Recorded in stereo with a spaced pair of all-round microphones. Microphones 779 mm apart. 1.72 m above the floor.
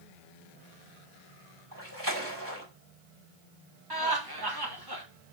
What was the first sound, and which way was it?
A splash, 25° right (ahead or behind).